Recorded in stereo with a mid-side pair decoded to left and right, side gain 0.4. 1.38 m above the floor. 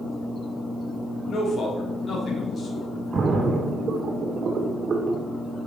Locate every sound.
1.3 s a man speaking: 50° left, 3.5 m
3.1 s a splash: 55° right, 1.7 m